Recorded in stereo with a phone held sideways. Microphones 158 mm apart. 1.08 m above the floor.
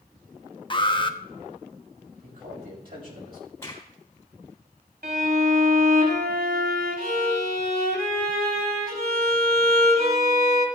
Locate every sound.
0.7 s an alarm: 30° left (ahead or behind), 0.9 m
2.2 s a man speaking: 65° right (ahead or behind), 6.5 m
3.6 s a crack: 15° left (ahead or behind), 3.5 m
5.0 s a violin: 75° right (ahead or behind), 2.5 m